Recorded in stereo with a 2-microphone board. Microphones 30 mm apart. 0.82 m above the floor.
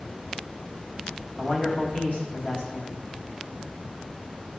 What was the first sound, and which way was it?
A man speaking, 50° left (ahead or behind).